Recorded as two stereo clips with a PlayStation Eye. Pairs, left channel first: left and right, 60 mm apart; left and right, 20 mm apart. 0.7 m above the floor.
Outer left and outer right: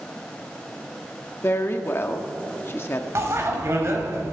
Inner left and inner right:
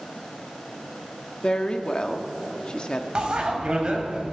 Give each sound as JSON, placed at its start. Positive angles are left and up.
{"t": 1.4, "sound": "a woman speaking", "side_deg": 40, "distance_m": 1.3}
{"t": 3.1, "sound": "a bicycle bell", "side_deg": -50, "distance_m": 2.5}